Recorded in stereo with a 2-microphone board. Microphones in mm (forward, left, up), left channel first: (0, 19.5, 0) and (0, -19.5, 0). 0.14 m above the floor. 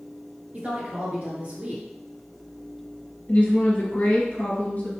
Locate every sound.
0.5 s a woman speaking: 35° right (ahead or behind), 1.9 m
3.3 s a woman speaking: 45° left (ahead or behind), 1.5 m